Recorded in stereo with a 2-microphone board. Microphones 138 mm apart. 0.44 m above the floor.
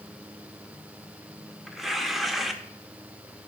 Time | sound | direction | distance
1.7 | tearing paper | centre (ahead or behind) | 0.7 m